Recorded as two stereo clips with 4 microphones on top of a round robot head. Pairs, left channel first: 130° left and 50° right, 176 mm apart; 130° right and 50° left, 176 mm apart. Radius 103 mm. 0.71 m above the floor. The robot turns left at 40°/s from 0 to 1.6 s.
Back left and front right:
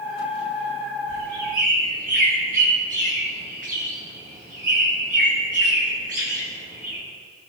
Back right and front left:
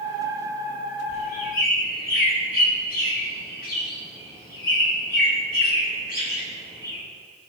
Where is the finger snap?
I don't hear a finger snap.